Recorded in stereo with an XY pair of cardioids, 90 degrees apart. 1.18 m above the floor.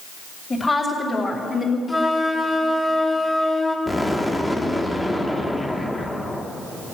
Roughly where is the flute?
Ahead.